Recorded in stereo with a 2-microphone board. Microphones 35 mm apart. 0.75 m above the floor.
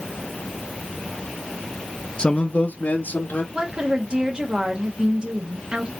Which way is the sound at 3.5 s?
35° right (ahead or behind).